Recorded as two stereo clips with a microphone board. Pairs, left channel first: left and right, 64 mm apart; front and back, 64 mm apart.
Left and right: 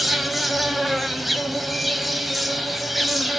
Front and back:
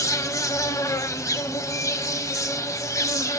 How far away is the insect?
About 0.9 m.